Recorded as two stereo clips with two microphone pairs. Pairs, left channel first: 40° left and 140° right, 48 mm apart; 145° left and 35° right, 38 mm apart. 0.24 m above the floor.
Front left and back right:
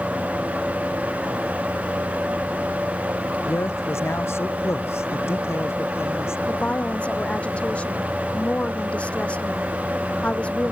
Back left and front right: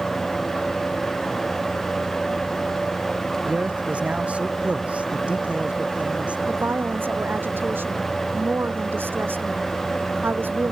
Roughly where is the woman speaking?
Ahead.